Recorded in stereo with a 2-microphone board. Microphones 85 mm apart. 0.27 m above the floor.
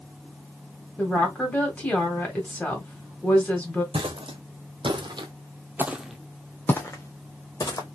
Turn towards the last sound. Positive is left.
turn(degrees=40)  # may be behind; listen again after turning